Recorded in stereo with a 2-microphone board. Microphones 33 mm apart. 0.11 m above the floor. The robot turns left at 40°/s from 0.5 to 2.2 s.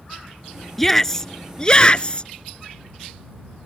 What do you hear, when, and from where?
0.8 s a shout: 165° left; by 2.3 s 110° left